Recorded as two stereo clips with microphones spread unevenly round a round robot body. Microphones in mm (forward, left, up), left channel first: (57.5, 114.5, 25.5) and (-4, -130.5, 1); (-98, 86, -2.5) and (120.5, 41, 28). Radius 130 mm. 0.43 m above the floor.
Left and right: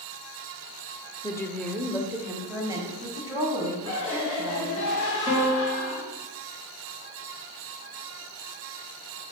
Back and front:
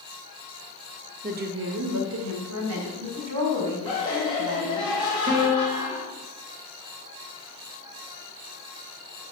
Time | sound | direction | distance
1.2 | a woman speaking | 5° left | 0.8 m
3.9 | laughter | 100° left | 3 m
5.3 | a piano | 20° left | 3 m